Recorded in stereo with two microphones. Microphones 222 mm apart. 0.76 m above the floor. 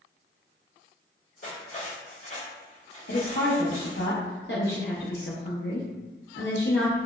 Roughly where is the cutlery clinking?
Left.